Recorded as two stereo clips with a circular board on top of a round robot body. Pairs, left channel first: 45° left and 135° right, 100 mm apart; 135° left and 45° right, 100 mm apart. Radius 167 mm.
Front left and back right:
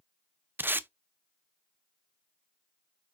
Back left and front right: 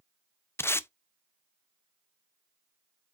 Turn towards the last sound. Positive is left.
turn(degrees=175)